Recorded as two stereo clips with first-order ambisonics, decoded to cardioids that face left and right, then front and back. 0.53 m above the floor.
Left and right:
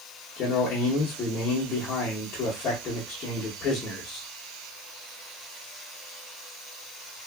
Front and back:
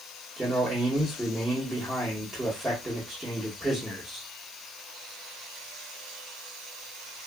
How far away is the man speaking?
About 0.8 m.